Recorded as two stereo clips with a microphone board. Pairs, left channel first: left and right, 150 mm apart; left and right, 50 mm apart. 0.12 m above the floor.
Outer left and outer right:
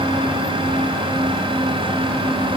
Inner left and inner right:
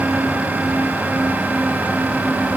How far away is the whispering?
No whispering in this recording.